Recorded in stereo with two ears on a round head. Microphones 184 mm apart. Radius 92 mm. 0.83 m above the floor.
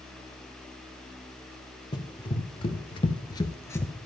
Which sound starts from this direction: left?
Running footsteps, at 1.9 s.